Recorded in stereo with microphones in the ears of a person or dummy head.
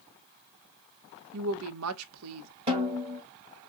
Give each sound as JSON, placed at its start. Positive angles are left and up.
{"t": 1.3, "sound": "a woman speaking", "side_deg": -80, "distance_m": 0.9}
{"t": 2.7, "sound": "a snare drum", "side_deg": -30, "distance_m": 1.7}